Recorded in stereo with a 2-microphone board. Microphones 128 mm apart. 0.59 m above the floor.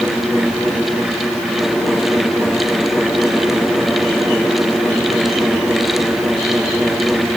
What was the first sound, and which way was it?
Only background noise.